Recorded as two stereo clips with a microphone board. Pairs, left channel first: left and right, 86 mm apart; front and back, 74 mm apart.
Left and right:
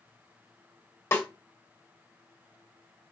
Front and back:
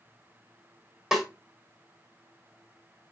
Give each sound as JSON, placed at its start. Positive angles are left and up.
{"t": 1.1, "sound": "a snare drum", "azimuth_deg": 105, "distance_m": 1.1}